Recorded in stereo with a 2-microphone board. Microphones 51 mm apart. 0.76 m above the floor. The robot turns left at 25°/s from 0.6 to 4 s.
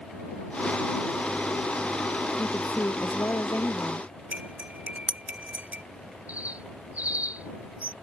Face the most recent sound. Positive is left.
turn(degrees=-30)  # may be behind; listen again after turning